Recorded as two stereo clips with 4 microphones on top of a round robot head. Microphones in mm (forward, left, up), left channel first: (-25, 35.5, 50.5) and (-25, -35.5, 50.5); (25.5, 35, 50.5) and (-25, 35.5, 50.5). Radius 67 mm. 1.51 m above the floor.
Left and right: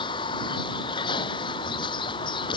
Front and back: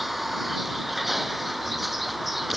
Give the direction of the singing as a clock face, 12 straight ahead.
No singing in this recording.